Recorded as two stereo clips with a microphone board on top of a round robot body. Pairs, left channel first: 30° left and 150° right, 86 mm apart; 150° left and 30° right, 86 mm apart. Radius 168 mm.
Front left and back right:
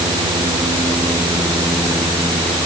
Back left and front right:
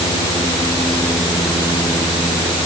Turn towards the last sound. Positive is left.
No sound to turn to.